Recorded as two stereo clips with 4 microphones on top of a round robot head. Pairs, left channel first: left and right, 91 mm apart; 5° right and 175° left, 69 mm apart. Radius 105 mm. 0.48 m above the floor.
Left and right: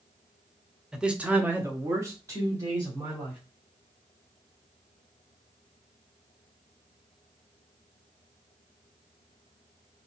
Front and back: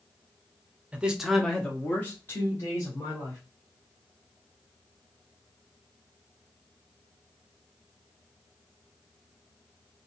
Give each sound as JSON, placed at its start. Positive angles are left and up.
{"t": 0.9, "sound": "a man speaking", "azimuth_deg": -165, "distance_m": 1.0}